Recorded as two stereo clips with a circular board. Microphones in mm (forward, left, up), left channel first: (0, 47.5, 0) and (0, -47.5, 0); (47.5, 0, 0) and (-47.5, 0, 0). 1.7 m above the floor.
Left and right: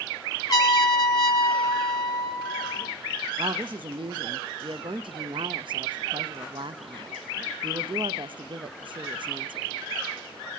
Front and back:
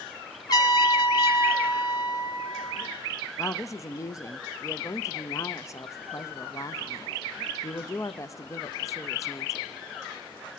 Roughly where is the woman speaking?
Ahead right.